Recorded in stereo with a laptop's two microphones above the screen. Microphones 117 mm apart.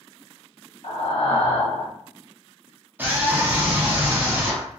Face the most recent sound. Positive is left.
turn(degrees=-15)  # may be behind; listen again after turning